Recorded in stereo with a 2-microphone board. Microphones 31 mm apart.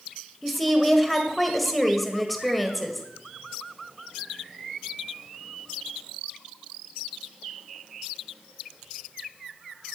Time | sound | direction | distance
0.4 | a woman speaking | centre (ahead or behind) | 1.9 m